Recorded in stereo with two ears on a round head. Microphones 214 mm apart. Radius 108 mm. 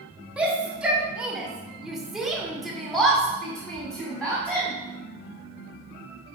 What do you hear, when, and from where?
0.4 s a shout: 5° right (ahead or behind), 1.5 m; by 4.7 s 5° left (ahead or behind), 1.6 m